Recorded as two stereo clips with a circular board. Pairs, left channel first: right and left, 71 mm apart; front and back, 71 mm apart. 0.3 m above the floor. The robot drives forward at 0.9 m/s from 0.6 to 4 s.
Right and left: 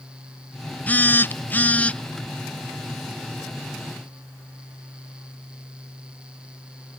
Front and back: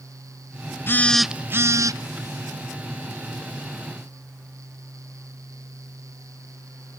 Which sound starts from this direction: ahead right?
A phone buzzing, at 0.9 s.